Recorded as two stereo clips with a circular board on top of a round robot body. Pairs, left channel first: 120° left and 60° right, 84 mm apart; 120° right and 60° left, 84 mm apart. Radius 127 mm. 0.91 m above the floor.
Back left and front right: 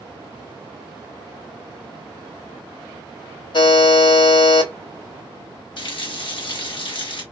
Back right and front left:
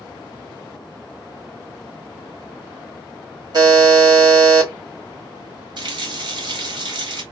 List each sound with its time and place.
3.5 s a buzzer: 100° left, 2 m
5.8 s a running tap: 95° left, 1.0 m